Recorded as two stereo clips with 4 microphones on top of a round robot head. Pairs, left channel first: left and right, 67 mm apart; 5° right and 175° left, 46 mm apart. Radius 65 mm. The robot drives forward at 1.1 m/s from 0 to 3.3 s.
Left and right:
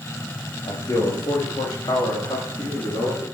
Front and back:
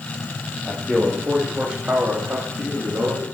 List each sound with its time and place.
0.7 s a man speaking: 80° left, 2 m; by 3.2 s 140° left, 3.5 m